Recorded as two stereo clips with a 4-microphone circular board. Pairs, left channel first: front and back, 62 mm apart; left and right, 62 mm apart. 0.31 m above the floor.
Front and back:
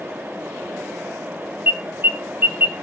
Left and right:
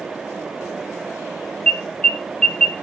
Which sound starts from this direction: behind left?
An alarm, at 1.7 s.